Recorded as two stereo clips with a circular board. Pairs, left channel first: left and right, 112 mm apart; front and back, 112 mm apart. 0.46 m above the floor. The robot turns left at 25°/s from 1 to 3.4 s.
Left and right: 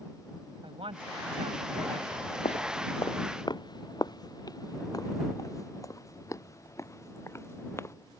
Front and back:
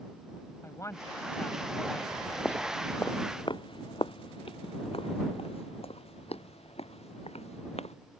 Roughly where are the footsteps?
Left.